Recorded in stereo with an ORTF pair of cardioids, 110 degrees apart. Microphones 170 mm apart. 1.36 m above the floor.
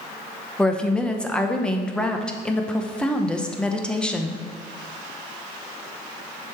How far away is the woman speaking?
About 0.7 m.